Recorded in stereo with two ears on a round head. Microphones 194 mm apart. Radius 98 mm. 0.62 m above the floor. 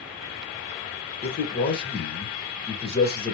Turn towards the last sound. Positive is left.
turn(degrees=45)  # may be behind; listen again after turning